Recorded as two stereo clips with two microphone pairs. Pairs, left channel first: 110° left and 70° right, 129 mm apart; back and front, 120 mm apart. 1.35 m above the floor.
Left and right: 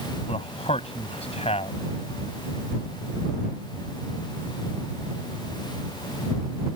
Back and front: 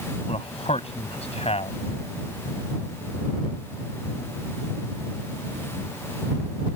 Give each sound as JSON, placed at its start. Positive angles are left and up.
{"t": 0.3, "sound": "a man speaking", "azimuth_deg": 150}